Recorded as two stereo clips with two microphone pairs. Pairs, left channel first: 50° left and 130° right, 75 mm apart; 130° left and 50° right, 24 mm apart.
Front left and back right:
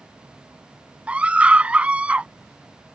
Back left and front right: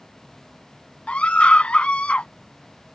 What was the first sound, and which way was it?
A scream, 155° left.